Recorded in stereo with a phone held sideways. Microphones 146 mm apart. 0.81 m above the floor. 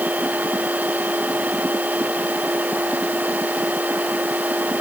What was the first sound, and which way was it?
A machine running, 10° right (ahead or behind).